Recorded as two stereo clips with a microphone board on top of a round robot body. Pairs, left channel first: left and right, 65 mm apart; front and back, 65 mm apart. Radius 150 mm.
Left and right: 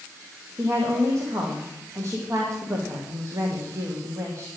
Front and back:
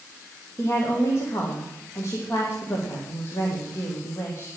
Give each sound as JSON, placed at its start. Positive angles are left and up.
{"t": 0.6, "sound": "a woman speaking", "azimuth_deg": -45, "distance_m": 1.8}